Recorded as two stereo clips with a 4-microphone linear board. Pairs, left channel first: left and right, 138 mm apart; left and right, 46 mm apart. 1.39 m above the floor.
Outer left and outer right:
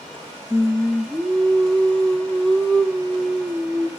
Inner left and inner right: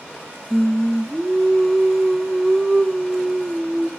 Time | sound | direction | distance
0.5 | singing | 5° left (ahead or behind) | 0.7 m